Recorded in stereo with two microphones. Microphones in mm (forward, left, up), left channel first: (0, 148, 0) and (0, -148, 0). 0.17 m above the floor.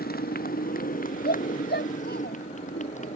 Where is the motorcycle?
30° left (ahead or behind); by 3.2 s 25° left (ahead or behind).